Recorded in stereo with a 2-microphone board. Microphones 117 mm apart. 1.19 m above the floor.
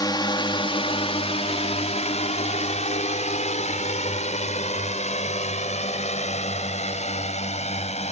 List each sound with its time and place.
0.0 s a drone: 35° left (ahead or behind); by 8.1 s 70° left (ahead or behind)